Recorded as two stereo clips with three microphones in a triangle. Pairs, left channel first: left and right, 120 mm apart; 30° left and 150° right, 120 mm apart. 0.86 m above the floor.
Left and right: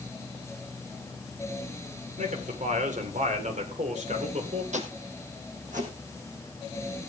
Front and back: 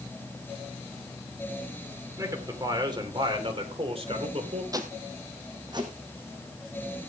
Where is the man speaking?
85° right, 2.5 m; by 4.6 s 115° right, 3 m.